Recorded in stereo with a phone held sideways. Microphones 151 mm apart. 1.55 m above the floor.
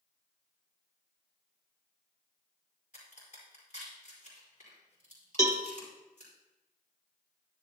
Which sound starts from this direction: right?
A cowbell, at 5.4 s.